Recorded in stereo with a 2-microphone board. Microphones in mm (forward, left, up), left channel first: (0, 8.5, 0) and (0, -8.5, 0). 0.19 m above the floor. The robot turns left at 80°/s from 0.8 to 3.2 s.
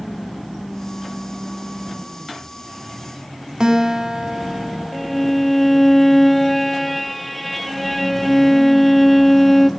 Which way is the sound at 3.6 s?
35° right (ahead or behind).